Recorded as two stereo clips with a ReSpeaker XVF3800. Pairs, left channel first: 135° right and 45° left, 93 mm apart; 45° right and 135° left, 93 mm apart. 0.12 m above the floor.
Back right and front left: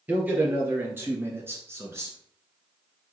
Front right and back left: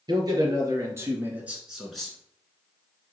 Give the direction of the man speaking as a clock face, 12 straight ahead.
8 o'clock.